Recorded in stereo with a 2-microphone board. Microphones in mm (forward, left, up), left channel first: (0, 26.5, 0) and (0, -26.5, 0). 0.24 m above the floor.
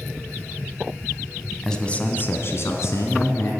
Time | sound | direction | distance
1.6 | a man speaking | 10° left (ahead or behind) | 1.4 m